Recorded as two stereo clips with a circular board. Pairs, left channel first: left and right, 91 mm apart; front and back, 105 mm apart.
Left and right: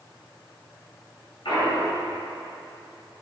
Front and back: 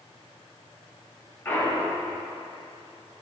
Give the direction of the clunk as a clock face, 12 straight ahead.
10 o'clock.